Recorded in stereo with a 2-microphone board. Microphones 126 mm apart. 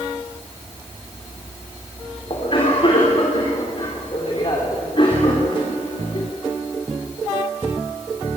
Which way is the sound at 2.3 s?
45° left (ahead or behind).